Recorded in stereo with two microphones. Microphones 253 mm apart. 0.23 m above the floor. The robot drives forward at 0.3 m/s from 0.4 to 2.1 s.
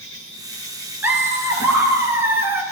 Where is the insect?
55° left (ahead or behind), 2.5 m; by 2.7 s 65° left (ahead or behind), 2.5 m.